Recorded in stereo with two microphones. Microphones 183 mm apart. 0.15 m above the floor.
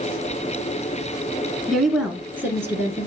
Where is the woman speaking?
Centre (ahead or behind), 1.2 m; by 3.1 s 15° right (ahead or behind), 1.7 m.